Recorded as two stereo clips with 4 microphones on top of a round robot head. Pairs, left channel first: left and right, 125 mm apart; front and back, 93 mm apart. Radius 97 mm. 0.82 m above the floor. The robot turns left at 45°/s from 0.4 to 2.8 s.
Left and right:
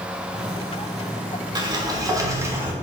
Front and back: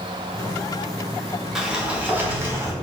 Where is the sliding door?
100° right, 1.0 m; by 2.7 s 150° right, 1.0 m.